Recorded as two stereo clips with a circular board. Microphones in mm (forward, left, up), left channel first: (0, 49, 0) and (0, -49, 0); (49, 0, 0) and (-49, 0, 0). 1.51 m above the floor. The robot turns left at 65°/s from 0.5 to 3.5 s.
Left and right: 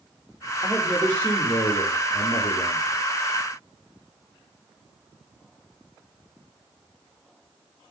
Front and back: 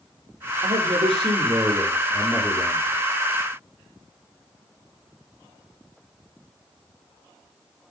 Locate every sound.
0.6 s a man speaking: 165° right, 5 m; by 2.9 s 45° left, 5 m